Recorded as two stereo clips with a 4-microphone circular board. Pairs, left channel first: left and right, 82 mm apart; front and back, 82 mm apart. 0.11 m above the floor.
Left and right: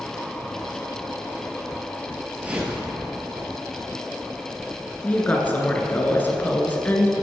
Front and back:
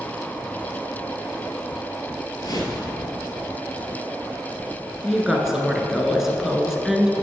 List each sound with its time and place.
2.4 s a whoosh: 20° right, 1.8 m
5.0 s a woman speaking: 105° left, 1.1 m